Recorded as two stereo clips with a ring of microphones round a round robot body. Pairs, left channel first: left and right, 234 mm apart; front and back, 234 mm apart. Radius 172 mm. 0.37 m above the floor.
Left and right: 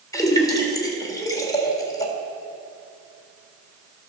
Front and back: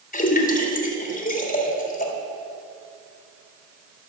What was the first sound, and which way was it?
A splash, 25° left.